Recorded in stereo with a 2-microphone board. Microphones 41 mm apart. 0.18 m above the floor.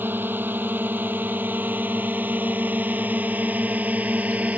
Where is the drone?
55° right (ahead or behind); by 4.6 s 35° right (ahead or behind).